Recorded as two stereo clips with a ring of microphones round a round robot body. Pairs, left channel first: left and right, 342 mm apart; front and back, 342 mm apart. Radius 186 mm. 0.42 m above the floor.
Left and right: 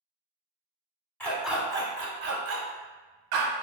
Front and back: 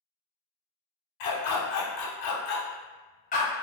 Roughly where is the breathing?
I don't hear breathing.